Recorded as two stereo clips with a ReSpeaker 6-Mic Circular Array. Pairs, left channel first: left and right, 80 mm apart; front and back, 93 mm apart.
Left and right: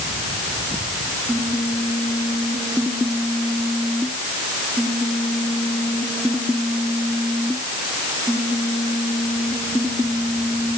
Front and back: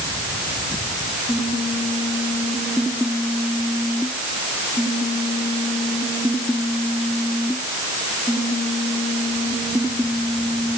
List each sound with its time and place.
Only background noise.